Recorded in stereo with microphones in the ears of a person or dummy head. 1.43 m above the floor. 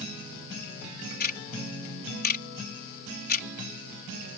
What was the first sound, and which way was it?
Ticking, 50° left (ahead or behind).